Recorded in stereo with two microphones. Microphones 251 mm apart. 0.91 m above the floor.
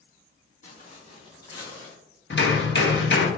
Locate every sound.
0.6 s footsteps: 30° left (ahead or behind), 1.9 m; by 1.9 s 5° left (ahead or behind), 1.5 m
2.3 s hammering: 50° left (ahead or behind), 0.8 m